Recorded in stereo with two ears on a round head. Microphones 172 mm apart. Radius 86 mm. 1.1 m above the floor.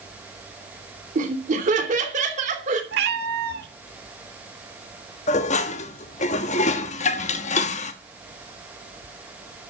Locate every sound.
1.1 s laughter: 45° right (ahead or behind), 3 m
2.9 s a cat meowing: 60° right (ahead or behind), 1.5 m
5.3 s dishes clattering: 40° left (ahead or behind), 1.2 m